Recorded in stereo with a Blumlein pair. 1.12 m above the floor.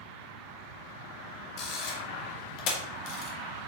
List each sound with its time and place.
1.6 s a camera shutter: 40° left, 1.6 m